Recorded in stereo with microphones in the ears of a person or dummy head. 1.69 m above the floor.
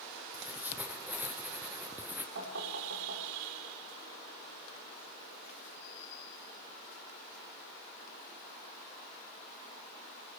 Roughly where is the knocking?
Right.